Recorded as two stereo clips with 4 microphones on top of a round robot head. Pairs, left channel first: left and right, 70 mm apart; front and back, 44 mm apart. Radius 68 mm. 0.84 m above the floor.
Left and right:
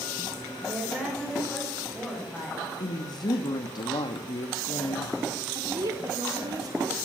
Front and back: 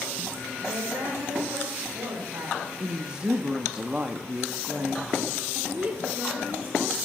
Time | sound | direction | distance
0.6 | a woman speaking | 165° right | 4.5 m
2.8 | a woman speaking | 110° left | 1.1 m
5.5 | a woman speaking | 125° right | 3 m